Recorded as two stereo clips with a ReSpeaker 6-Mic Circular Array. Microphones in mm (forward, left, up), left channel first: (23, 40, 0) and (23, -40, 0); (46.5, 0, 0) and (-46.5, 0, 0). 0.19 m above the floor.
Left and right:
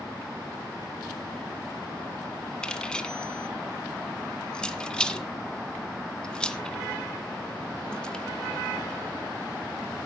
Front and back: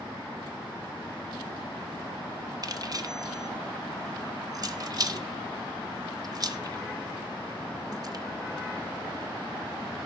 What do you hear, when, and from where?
2.6 s keys jangling: 165° left, 1.4 m